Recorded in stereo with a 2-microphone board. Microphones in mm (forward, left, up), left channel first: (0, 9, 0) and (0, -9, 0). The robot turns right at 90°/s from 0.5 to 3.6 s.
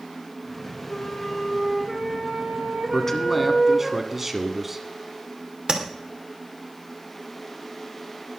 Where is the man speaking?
145° left, 1.8 m; by 4.8 s 155° right, 1.8 m.